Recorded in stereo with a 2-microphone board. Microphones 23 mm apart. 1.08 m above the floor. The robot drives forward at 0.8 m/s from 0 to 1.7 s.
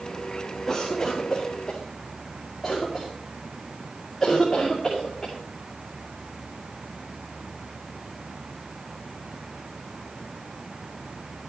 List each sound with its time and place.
0.7 s a cough: 10° left (ahead or behind), 1.8 m; by 5.3 s 5° left (ahead or behind), 2.5 m